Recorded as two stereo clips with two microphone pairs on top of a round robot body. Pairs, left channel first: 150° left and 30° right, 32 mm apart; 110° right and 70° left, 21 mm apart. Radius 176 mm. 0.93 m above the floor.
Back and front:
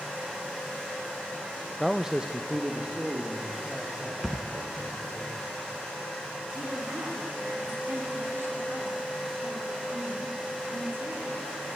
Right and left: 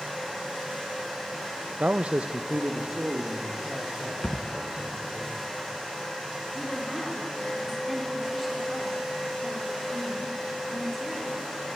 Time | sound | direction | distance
1.8 | a man speaking | 70° left | 0.7 m
4.2 | a thud | 115° right | 1.3 m
6.5 | a woman speaking | 15° right | 3.5 m